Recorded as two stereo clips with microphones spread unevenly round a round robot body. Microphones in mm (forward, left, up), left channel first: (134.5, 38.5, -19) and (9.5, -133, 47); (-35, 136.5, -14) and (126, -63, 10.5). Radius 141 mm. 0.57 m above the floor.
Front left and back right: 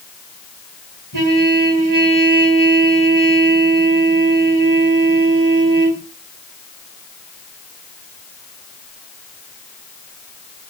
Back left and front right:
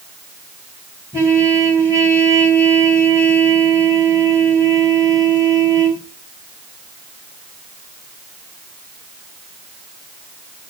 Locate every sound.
1.1 s a trumpet: 135° right, 4 m